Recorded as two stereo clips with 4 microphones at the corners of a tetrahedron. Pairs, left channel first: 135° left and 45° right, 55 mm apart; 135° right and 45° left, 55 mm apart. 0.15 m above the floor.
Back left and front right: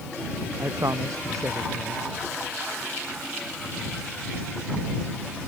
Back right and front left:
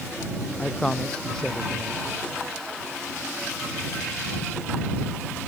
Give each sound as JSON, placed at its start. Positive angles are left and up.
{"t": 0.6, "sound": "a man speaking", "azimuth_deg": -60}